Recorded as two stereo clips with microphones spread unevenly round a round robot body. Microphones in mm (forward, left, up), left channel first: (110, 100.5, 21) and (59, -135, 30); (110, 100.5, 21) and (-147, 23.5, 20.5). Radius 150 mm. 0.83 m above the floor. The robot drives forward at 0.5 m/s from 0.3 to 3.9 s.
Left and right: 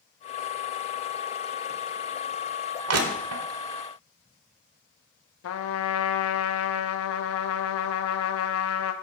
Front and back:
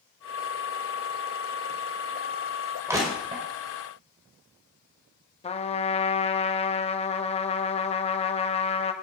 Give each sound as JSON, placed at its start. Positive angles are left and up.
{"t": 2.9, "sound": "crushing", "azimuth_deg": -80, "distance_m": 1.5}
{"t": 5.4, "sound": "a trumpet", "azimuth_deg": 80, "distance_m": 1.0}